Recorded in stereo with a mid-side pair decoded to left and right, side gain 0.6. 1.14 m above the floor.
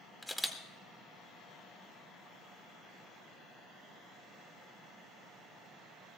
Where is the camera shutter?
10° left, 1.9 m.